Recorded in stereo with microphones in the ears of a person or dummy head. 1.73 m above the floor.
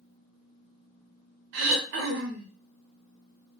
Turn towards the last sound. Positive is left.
turn(degrees=-65)  # may be behind; listen again after turning